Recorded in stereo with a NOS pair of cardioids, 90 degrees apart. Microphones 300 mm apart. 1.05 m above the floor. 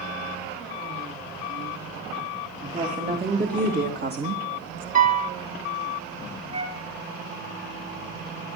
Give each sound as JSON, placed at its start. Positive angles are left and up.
{"t": 2.6, "sound": "a woman speaking", "azimuth_deg": -25, "distance_m": 3.0}
{"t": 5.0, "sound": "a piano", "azimuth_deg": -25, "distance_m": 1.3}
{"t": 6.5, "sound": "a flute", "azimuth_deg": -65, "distance_m": 3.0}